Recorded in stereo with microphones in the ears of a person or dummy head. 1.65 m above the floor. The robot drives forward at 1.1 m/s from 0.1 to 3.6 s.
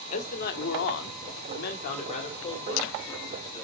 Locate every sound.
0.1 s a man speaking: 40° left (ahead or behind), 1.5 m; by 3.6 s 20° left (ahead or behind), 3 m